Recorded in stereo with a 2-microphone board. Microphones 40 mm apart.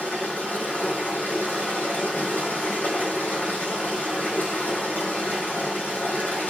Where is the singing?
No singing in this recording.